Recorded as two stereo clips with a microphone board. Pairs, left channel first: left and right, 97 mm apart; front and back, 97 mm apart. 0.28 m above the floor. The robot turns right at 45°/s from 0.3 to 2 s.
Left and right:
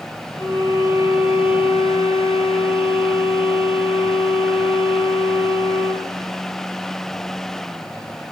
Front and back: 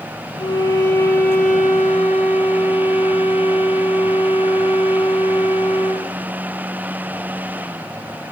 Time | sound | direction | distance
0.4 | a violin | 40° left | 5.5 m